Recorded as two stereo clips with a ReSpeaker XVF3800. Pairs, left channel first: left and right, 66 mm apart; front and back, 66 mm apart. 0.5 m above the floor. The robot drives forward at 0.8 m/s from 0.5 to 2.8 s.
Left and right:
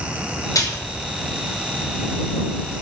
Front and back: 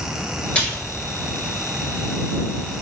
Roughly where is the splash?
Left.